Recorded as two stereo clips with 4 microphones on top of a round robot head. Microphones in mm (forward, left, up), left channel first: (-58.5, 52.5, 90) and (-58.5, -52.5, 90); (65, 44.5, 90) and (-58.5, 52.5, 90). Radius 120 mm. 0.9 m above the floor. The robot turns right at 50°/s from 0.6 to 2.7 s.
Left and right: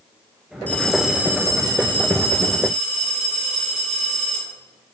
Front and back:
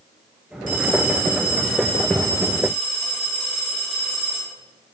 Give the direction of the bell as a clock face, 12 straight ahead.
6 o'clock.